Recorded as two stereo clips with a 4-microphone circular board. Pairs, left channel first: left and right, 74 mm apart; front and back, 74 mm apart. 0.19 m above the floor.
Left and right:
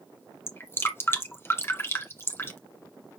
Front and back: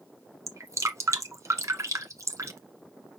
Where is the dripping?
140° left, 1.6 m.